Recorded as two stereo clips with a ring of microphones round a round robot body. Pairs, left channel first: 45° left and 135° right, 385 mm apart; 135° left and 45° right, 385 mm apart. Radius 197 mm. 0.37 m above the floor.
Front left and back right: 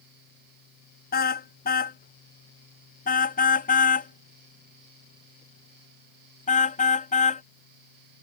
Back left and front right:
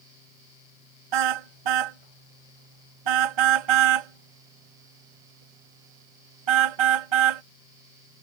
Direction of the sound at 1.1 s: 25° right.